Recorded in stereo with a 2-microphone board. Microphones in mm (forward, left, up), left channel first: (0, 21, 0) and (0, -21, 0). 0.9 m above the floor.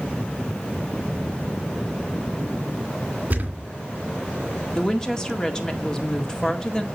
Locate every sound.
3.3 s a thud: 40° right (ahead or behind), 2.5 m
4.8 s a woman speaking: 15° left (ahead or behind), 1.9 m